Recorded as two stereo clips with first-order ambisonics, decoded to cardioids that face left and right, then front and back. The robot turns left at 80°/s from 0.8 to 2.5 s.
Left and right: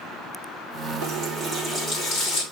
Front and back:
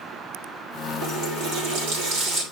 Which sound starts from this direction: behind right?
A running tap, at 1.0 s.